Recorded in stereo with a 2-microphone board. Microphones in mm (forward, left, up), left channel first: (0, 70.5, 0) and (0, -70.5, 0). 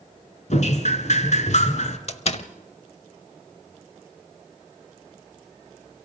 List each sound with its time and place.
0.5 s dripping: 60° left (ahead or behind), 1.8 m
2.1 s a door slam: 50° left (ahead or behind), 0.9 m